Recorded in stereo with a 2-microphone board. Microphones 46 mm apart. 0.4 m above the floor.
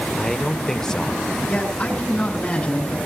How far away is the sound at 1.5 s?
About 8.5 m.